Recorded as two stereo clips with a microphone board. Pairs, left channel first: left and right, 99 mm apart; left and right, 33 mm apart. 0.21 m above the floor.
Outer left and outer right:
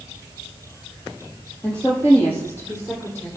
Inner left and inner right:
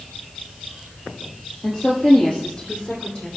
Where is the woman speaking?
15° left (ahead or behind), 6.5 m; by 3.3 s 25° left (ahead or behind), 7 m.